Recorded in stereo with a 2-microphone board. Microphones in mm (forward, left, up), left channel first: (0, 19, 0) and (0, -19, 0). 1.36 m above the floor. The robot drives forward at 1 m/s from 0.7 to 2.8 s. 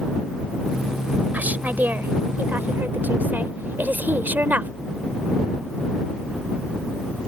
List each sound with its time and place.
1.3 s a woman speaking: 50° right (ahead or behind); by 4.7 s 60° right (ahead or behind)